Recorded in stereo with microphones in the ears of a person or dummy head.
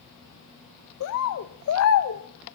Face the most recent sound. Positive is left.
turn(degrees=65)  # may be behind; listen again after turning